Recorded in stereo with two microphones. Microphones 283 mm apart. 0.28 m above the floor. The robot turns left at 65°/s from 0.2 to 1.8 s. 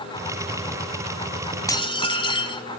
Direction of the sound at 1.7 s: 10° left (ahead or behind).